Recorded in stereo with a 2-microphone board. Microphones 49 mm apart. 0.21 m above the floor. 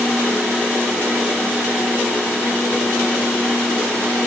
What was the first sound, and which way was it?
Only background noise.